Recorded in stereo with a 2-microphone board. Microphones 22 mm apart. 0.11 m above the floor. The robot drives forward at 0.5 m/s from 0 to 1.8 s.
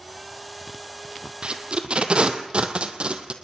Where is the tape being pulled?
50° right (ahead or behind), 1.8 m; by 3.3 s 55° right (ahead or behind), 1.7 m.